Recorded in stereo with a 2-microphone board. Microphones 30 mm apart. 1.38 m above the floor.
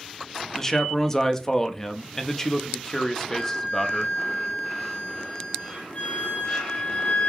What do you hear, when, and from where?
0.5 s a man speaking: 15° left (ahead or behind), 0.5 m
3.3 s a flute: 50° left (ahead or behind), 1.2 m